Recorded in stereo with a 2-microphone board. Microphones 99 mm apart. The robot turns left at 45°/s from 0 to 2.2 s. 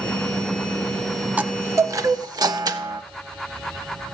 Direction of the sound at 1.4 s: 20° right.